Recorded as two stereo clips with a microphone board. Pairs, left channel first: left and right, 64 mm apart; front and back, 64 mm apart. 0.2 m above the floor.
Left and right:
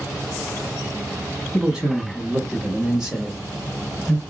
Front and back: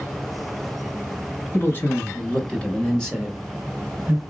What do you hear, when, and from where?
1.5 s a man speaking: 15° right, 1.7 m; by 4.2 s 175° left, 1.4 m